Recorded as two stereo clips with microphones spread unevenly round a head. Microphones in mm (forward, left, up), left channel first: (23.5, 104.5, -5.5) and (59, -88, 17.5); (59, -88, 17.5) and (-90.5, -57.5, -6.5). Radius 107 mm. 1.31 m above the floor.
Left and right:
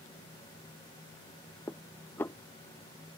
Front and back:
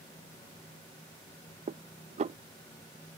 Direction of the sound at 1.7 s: Straight behind.